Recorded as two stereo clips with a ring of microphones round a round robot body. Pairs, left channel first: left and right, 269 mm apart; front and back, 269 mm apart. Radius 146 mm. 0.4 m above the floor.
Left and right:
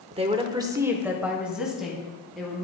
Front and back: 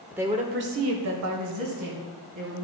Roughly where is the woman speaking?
Right.